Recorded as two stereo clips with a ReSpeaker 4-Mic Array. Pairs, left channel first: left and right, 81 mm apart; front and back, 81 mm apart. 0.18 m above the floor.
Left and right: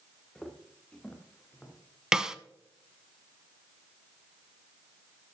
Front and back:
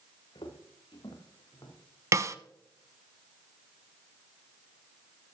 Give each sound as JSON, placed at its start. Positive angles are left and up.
{"t": 0.3, "sound": "footsteps", "azimuth_deg": 10, "distance_m": 1.9}
{"t": 2.1, "sound": "a snare drum", "azimuth_deg": -165, "distance_m": 0.5}